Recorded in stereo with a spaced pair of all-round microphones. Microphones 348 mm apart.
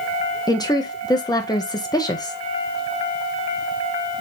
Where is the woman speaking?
10° left (ahead or behind), 0.9 m.